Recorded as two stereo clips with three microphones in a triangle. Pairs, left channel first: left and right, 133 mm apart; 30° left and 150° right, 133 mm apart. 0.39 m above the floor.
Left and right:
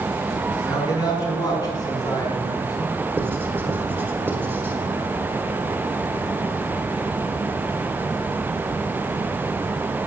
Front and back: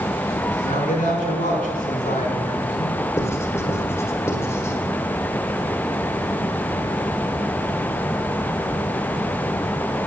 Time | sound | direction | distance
0.6 | a man speaking | 30° left | 4 m
3.2 | writing | 25° right | 1.7 m